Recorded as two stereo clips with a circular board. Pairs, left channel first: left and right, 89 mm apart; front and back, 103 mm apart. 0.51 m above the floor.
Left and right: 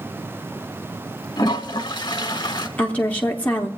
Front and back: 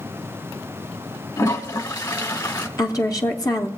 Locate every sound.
1.4 s a toilet flushing: 55° left, 1.1 m
2.8 s a woman speaking: 25° left, 0.8 m